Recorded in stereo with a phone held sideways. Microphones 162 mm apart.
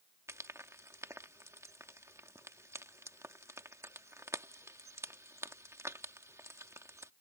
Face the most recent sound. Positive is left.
turn(degrees=-15)  # may be behind; listen again after turning